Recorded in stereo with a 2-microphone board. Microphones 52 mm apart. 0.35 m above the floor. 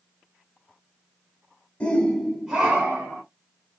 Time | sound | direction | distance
1.8 | a shout | 25° left (ahead or behind) | 0.9 m